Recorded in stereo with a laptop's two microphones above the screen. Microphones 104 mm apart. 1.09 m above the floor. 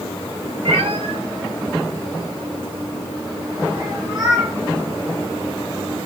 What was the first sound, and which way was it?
A cat meowing, 70° right (ahead or behind).